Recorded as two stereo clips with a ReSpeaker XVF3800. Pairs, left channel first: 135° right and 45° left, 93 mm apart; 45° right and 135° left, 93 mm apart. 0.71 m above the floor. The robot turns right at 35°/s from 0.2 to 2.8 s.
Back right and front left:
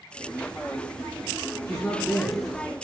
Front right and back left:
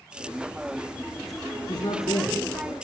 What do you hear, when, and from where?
1.7 s a man speaking: 60° right, 5.5 m; by 2.8 s 20° right, 5.5 m